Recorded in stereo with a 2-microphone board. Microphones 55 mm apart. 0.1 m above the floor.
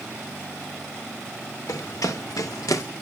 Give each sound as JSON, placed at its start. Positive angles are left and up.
{"t": 1.7, "sound": "running footsteps", "side_deg": 80, "distance_m": 2.5}